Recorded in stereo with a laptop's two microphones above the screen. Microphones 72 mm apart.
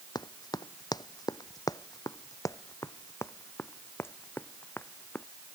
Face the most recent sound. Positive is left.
turn(degrees=25)  # may be behind; listen again after turning